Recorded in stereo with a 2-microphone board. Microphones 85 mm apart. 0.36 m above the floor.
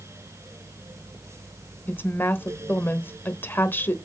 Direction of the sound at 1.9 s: 25° left (ahead or behind).